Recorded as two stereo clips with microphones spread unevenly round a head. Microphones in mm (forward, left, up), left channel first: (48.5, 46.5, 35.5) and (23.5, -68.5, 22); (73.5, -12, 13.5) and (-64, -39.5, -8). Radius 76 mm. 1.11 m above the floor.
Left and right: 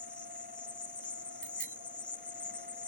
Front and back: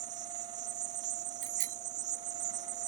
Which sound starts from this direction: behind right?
A bicycle bell, at 1.4 s.